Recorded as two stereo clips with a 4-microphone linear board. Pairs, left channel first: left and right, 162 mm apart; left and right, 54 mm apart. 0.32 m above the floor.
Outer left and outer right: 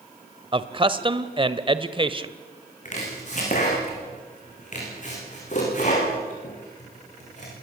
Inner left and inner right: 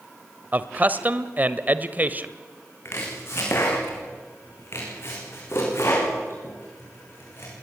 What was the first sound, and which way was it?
A man speaking, 30° right (ahead or behind).